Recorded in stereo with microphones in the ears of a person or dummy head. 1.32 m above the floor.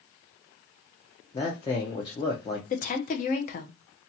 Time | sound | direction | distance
1.3 | a man speaking | 20° left (ahead or behind) | 0.5 m
2.7 | a woman speaking | 35° left (ahead or behind) | 0.6 m